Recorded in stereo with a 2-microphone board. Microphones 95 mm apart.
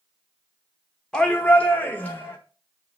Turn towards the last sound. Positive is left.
turn(degrees=25)  # may be behind; listen again after turning